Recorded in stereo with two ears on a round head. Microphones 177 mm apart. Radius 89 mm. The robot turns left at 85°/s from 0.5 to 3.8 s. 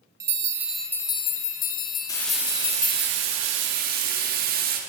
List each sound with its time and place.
0.2 s a bell: 160° right, 0.8 m; by 3.1 s 20° right, 0.8 m
2.1 s frying: 20° left, 1.4 m; by 4.8 s 125° right, 1.4 m